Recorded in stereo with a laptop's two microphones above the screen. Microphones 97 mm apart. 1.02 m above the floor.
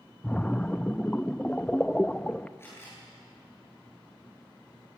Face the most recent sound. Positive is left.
turn(degrees=25)  # may be behind; listen again after turning